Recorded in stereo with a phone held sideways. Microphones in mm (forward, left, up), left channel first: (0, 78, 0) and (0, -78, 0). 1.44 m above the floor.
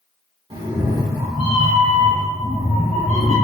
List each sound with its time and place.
0.5 s a cat meowing: 35° right (ahead or behind), 1.0 m; by 3.4 s 45° left (ahead or behind), 1.2 m